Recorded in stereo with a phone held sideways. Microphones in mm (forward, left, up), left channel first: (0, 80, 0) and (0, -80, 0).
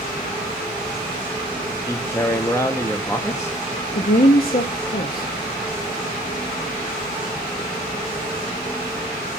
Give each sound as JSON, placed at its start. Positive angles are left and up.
{"t": 1.9, "sound": "a man speaking", "side_deg": 15, "distance_m": 0.9}
{"t": 4.0, "sound": "a woman speaking", "side_deg": 65, "distance_m": 1.0}